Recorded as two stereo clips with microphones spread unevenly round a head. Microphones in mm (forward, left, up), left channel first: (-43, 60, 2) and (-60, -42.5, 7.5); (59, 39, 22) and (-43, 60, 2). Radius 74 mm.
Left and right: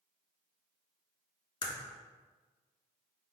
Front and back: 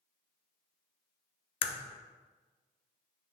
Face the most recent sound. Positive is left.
turn(degrees=30)